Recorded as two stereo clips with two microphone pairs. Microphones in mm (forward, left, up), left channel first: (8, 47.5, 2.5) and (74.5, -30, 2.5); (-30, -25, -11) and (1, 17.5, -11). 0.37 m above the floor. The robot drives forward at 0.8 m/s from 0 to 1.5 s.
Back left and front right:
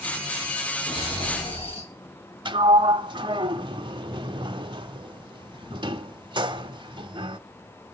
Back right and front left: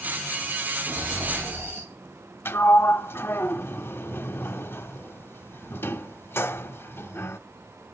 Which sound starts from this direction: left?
Snoring, at 0.9 s.